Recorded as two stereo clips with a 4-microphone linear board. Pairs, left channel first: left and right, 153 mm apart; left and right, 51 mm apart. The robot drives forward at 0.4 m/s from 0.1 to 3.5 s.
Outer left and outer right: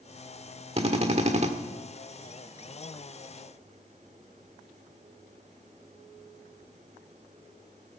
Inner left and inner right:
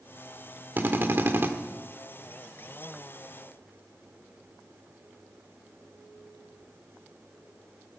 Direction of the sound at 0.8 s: 40° right (ahead or behind).